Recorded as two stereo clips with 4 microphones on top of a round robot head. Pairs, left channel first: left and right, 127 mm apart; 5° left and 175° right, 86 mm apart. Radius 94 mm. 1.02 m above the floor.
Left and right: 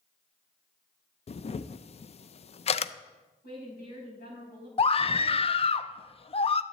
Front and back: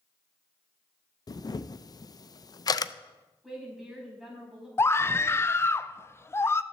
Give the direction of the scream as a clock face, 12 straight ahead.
10 o'clock.